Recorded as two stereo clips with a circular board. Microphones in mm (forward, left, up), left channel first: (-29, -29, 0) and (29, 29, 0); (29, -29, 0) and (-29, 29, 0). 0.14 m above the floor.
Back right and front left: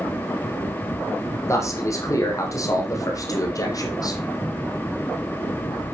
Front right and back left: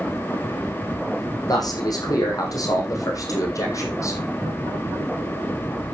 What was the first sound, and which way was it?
A man speaking, 85° right.